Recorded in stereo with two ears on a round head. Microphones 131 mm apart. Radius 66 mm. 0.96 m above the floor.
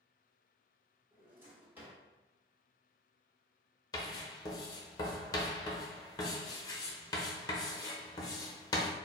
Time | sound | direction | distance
1.1 | a drawer | 15° right (ahead or behind) | 1.5 m
3.9 | writing | 25° left (ahead or behind) | 0.8 m